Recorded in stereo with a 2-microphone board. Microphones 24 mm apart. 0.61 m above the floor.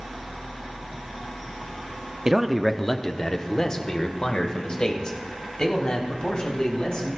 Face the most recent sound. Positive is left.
turn(degrees=40)  # may be behind; listen again after turning